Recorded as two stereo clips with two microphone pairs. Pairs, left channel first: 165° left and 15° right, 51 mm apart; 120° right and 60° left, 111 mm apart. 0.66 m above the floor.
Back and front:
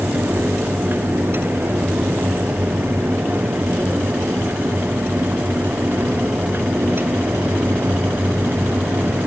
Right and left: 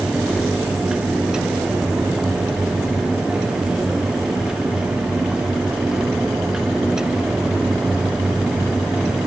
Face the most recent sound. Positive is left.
No sound to turn to.